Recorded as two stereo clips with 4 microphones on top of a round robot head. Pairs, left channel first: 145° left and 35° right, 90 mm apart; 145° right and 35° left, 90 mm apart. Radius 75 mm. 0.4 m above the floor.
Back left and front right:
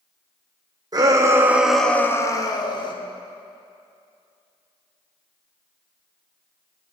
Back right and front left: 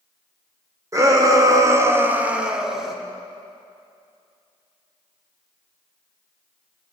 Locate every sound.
0.9 s a shout: 10° right, 1.2 m; by 3.0 s 125° left, 1.5 m